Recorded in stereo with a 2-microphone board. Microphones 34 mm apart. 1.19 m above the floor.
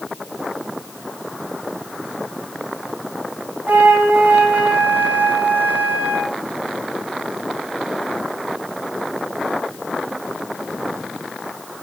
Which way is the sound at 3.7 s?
65° right (ahead or behind).